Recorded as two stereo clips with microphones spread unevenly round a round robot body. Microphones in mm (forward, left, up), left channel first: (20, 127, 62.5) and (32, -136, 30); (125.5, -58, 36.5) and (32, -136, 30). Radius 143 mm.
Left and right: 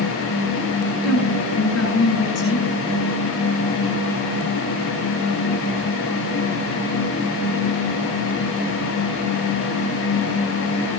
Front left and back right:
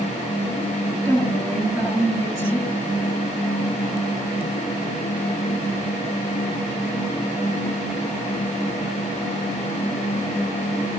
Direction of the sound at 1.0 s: 140° left.